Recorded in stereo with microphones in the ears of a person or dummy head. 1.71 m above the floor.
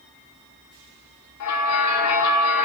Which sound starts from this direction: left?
A bell, at 1.4 s.